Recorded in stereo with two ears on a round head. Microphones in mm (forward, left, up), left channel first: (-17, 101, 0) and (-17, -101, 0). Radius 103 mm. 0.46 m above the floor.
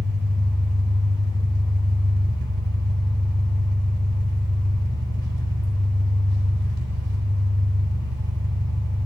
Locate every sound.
0.0 s an engine running: 45° right (ahead or behind), 2.0 m